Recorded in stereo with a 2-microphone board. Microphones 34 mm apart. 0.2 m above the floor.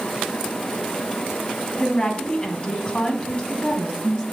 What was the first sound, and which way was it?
A woman speaking, 25° left (ahead or behind).